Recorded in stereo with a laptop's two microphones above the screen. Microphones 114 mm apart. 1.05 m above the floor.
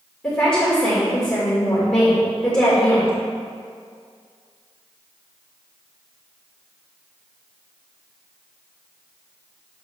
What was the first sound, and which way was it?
A woman speaking, 10° left (ahead or behind).